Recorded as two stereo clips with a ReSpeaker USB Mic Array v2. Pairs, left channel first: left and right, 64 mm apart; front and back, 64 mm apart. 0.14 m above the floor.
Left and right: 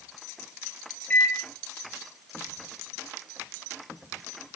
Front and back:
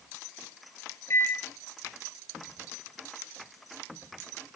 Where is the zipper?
No zipper in this recording.